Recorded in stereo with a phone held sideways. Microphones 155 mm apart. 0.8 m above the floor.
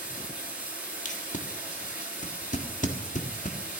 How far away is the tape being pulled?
About 1.5 m.